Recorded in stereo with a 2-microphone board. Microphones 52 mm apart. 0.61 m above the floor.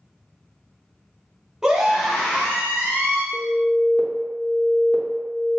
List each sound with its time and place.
1.6 s a scream: 10° right (ahead or behind), 0.8 m; by 3.2 s 30° left (ahead or behind), 1.1 m
3.3 s an alarm: 5° left (ahead or behind), 0.7 m